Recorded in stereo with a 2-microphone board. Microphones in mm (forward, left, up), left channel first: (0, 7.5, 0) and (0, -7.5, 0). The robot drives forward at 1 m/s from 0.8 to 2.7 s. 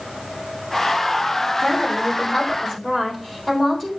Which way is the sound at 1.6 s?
40° left (ahead or behind).